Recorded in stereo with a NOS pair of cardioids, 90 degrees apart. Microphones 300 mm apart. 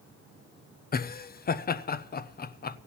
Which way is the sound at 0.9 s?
30° left.